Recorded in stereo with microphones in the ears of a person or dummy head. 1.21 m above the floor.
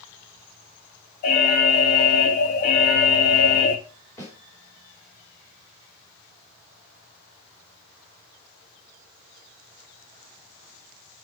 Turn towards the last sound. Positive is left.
turn(degrees=20)  # may be behind; listen again after turning